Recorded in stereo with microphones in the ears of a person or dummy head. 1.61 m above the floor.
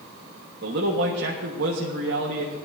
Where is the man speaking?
75° right (ahead or behind), 1.4 m.